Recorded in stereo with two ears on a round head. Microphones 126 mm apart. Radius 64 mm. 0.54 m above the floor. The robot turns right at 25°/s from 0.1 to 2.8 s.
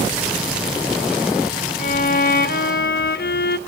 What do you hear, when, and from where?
1.8 s a violin: 50° left (ahead or behind), 0.9 m; by 3.6 s 70° left (ahead or behind), 0.9 m